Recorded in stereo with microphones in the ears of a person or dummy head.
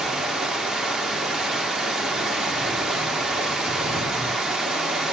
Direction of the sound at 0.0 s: 5° right (ahead or behind).